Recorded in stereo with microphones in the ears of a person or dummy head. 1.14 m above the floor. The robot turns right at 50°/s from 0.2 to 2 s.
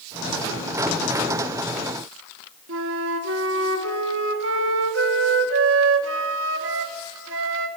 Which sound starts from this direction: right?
A flute, at 2.7 s.